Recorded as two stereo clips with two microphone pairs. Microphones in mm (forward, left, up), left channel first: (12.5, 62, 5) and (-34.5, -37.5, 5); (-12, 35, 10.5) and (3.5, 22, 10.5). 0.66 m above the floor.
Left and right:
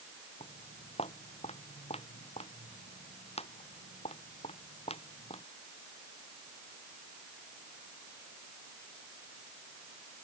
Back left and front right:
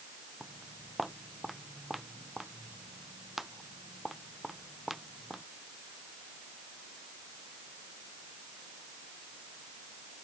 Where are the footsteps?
45° left.